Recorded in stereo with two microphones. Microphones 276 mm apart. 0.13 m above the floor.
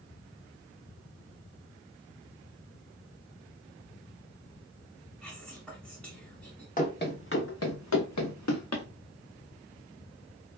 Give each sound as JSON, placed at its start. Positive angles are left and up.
{"t": 5.2, "sound": "whispering", "side_deg": 5, "distance_m": 1.0}
{"t": 6.8, "sound": "running footsteps", "side_deg": 30, "distance_m": 1.0}